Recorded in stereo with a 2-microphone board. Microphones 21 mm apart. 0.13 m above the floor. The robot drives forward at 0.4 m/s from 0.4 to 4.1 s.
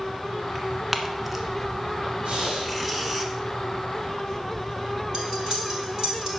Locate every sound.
0.6 s tearing paper: 10° right (ahead or behind), 1.2 m
2.2 s breathing: 70° right (ahead or behind), 3.5 m
5.1 s cutlery clinking: 45° right (ahead or behind), 2.5 m